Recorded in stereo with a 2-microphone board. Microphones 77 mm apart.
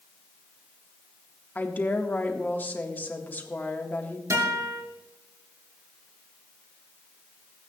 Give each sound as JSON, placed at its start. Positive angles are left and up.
{"t": 1.6, "sound": "a woman speaking", "side_deg": 25, "distance_m": 1.6}
{"t": 4.3, "sound": "a guitar", "side_deg": -45, "distance_m": 5.5}